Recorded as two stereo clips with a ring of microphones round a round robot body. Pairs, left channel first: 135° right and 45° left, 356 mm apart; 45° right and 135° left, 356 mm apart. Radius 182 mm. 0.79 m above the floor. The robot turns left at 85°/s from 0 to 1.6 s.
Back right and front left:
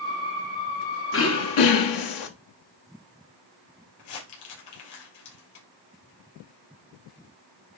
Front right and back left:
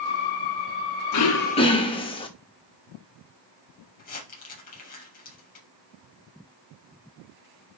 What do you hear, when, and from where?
1.1 s throat clearing: 80° right, 1.3 m; by 2.3 s 120° right, 1.3 m
4.0 s crumpling: 115° right, 4.5 m